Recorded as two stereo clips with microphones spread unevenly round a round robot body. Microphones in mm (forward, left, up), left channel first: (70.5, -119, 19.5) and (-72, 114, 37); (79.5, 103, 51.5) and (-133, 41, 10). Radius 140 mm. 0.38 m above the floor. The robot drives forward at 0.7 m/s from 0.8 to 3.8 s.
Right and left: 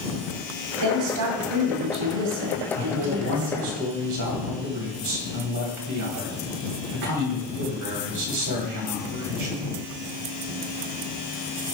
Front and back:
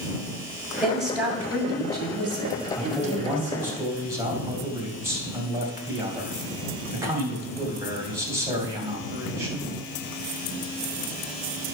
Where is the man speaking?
110° left, 2.5 m; by 9.7 s 125° left, 2.5 m.